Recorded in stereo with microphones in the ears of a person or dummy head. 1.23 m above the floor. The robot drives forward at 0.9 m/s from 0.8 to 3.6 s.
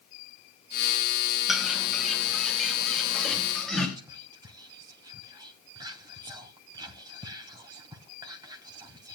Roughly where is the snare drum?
No snare drum in this recording.